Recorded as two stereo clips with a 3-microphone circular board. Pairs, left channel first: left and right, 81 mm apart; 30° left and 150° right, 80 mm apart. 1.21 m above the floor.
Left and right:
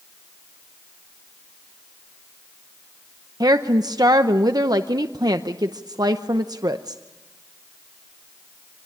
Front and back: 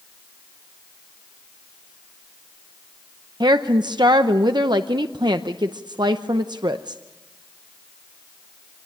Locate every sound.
3.4 s a woman speaking: 125° right, 0.7 m